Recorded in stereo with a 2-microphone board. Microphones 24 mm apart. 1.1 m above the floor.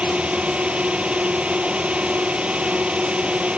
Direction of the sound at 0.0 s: 55° right (ahead or behind).